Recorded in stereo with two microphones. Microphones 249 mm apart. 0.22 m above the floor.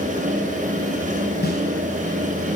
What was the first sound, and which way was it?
A snare drum, 40° left (ahead or behind).